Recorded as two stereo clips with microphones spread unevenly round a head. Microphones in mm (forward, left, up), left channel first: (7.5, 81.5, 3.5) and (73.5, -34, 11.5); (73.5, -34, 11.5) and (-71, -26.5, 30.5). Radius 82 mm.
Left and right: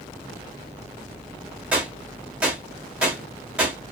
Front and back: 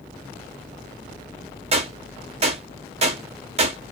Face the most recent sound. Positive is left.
turn(degrees=-145)